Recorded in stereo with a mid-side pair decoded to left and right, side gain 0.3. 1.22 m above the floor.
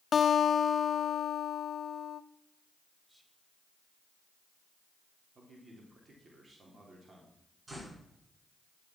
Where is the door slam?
30° right, 7.5 m.